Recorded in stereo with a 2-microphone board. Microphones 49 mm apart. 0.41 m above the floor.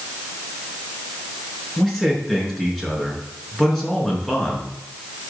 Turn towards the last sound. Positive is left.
turn(degrees=5)  # may be behind; listen again after turning